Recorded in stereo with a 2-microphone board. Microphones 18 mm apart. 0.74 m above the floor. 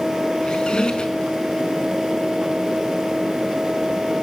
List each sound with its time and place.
0.4 s a squeak: 55° left (ahead or behind), 4.5 m